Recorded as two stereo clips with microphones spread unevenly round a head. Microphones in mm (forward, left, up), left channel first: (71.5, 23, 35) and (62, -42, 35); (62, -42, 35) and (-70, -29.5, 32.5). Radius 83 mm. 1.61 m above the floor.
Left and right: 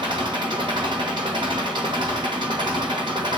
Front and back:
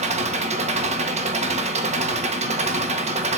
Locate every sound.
0.0 s an engine running: 150° right, 1.3 m